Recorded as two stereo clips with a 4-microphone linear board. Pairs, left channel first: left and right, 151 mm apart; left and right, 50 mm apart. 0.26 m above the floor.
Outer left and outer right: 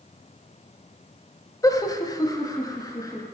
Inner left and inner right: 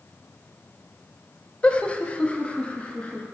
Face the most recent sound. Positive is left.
turn(degrees=20)  # may be behind; listen again after turning